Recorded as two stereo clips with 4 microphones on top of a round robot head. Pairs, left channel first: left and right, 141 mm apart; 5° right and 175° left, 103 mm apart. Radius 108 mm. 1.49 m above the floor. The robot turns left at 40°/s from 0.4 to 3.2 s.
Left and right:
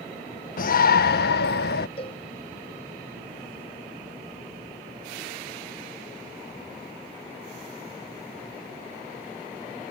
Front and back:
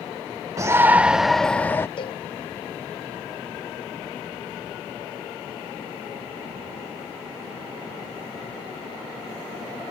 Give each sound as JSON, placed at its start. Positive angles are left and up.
{"t": 0.6, "sound": "a shout", "azimuth_deg": 115}
{"t": 2.0, "sound": "a cowbell", "azimuth_deg": 30}